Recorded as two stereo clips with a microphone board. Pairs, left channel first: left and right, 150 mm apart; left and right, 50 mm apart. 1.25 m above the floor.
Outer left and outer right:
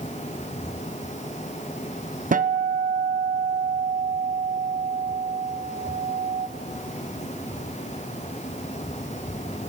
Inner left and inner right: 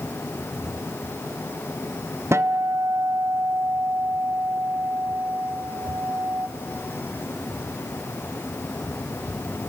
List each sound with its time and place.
2.3 s a guitar: 70° right (ahead or behind), 0.6 m